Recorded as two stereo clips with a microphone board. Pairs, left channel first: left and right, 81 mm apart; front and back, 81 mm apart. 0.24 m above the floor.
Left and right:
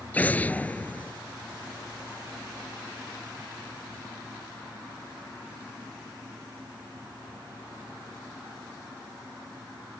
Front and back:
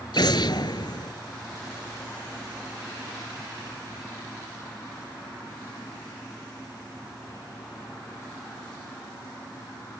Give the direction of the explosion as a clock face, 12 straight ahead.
11 o'clock.